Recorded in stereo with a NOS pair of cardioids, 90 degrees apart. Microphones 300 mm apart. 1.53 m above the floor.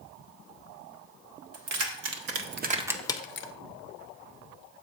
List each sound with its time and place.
1.5 s keys jangling: 70° right, 1.3 m; by 3.5 s 60° left, 0.6 m